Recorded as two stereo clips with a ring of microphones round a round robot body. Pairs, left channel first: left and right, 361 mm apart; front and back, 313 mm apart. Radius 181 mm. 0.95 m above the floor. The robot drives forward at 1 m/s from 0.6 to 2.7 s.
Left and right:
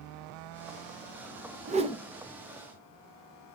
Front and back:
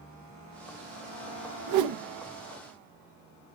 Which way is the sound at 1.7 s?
155° right.